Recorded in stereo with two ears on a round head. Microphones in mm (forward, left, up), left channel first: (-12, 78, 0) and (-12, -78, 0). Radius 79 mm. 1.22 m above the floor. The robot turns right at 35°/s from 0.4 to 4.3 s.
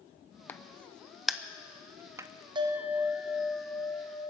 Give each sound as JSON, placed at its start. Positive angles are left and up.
{"t": 0.5, "sound": "a crack", "side_deg": 10, "distance_m": 0.5}
{"t": 2.5, "sound": "a bell", "azimuth_deg": -30, "distance_m": 1.0}